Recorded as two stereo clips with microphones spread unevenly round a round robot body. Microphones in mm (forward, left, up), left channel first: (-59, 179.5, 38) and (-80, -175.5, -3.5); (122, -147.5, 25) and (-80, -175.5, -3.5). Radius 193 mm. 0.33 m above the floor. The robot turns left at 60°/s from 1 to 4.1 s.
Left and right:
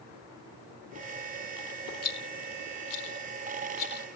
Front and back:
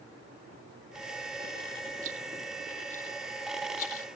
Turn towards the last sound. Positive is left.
turn(degrees=10)